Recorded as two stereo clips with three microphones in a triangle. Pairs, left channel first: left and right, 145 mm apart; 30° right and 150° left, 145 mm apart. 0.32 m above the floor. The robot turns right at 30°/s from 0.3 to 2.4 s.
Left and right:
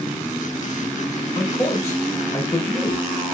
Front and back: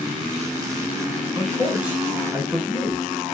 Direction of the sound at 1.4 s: 70° left.